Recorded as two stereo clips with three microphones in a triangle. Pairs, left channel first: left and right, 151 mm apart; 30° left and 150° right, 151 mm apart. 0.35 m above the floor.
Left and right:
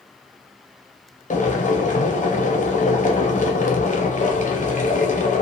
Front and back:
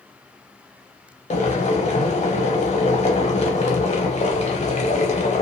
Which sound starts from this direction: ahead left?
Boiling, at 1.3 s.